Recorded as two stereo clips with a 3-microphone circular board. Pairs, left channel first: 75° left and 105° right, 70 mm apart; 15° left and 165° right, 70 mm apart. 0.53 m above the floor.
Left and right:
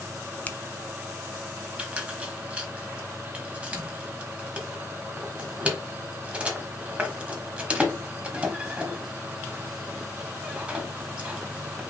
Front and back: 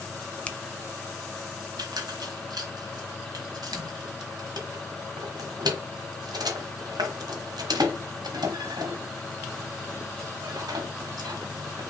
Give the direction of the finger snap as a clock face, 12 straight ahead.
10 o'clock.